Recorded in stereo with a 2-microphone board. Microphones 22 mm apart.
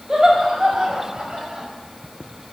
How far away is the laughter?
About 6 m.